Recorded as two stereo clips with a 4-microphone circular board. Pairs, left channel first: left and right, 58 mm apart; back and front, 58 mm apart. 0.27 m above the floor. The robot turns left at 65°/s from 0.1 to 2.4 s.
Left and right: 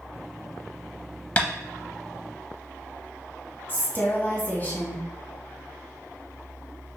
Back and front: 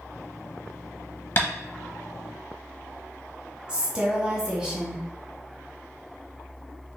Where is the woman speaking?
60° left, 1.1 m.